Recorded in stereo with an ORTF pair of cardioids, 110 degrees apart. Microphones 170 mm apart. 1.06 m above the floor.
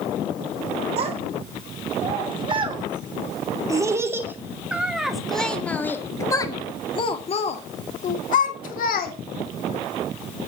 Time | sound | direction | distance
1.0 | a child speaking | 40° right | 4 m